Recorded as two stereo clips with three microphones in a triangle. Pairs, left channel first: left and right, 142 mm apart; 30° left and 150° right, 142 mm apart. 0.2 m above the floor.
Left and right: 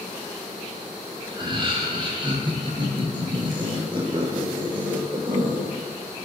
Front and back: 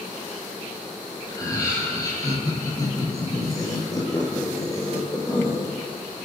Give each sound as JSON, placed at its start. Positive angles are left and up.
{"t": 1.3, "sound": "laughter", "azimuth_deg": -35, "distance_m": 6.5}